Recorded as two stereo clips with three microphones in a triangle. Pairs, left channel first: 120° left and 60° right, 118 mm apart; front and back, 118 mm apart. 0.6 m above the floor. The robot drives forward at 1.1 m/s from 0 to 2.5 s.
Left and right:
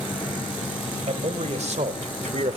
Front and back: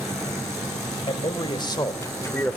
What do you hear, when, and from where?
1.1 s a man speaking: 40° right, 2.5 m; by 2.6 s 75° right, 1.9 m